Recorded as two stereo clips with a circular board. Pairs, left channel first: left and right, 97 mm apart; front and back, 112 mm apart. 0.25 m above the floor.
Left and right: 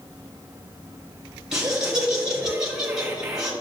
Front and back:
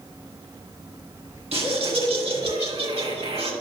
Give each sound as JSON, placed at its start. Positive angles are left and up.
{"t": 1.5, "sound": "laughter", "azimuth_deg": -175, "distance_m": 2.5}